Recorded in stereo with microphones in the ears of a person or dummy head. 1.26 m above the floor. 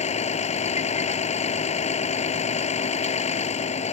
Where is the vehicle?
35° left (ahead or behind).